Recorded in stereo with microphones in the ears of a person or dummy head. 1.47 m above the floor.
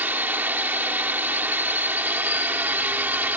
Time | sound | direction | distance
0.0 | a drone | 10° right (ahead or behind) | ?